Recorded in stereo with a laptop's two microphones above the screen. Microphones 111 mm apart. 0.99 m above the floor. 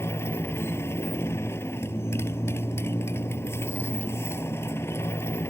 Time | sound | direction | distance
0.0 | a motorcycle | 25° left (ahead or behind) | ?